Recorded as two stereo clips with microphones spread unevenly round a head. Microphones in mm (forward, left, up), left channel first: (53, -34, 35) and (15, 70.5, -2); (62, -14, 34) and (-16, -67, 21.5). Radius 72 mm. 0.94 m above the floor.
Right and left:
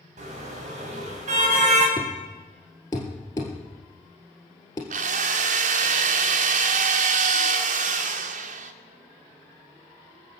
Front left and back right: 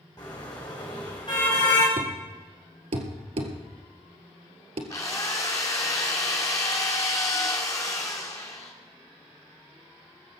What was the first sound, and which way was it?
A car horn, 95° left.